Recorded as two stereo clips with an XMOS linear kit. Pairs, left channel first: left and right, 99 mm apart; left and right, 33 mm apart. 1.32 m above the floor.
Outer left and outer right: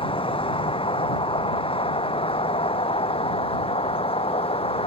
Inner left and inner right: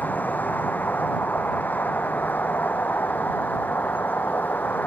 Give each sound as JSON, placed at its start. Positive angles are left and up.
{"t": 0.0, "sound": "a vehicle", "side_deg": 60}